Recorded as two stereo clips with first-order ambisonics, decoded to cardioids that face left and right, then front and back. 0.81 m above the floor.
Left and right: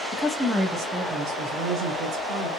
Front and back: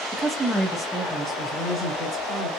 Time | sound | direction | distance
0.1 | a woman speaking | 115° left | 0.7 m